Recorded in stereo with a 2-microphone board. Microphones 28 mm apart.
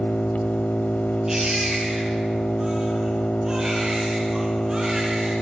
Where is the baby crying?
15° right (ahead or behind), 8.5 m.